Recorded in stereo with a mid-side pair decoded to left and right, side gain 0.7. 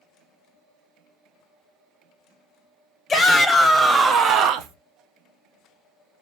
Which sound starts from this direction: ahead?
A shout, at 3.1 s.